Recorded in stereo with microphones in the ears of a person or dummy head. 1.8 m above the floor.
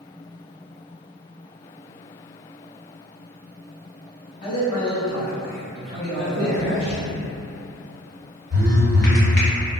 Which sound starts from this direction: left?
A man speaking, at 4.4 s.